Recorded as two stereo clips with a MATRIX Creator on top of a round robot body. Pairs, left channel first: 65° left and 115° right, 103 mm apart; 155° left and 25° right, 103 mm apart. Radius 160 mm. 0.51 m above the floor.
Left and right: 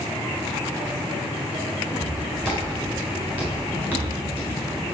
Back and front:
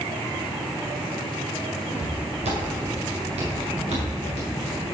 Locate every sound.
1.9 s footsteps: 25° right, 3.5 m; by 5.0 s 10° right, 7.5 m